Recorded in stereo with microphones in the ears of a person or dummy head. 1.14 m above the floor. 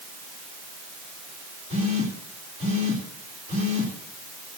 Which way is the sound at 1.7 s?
40° right (ahead or behind).